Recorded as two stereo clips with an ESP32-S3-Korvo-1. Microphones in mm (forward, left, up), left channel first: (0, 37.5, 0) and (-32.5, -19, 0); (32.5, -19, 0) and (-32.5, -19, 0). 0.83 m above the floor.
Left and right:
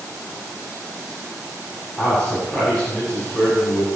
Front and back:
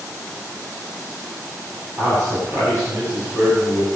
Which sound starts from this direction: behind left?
A man speaking, at 2.0 s.